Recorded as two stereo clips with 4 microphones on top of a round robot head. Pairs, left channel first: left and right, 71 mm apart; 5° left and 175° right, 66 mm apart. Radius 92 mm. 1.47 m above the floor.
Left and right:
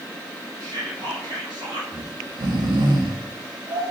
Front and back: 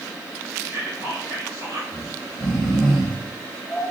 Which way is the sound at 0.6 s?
120° right.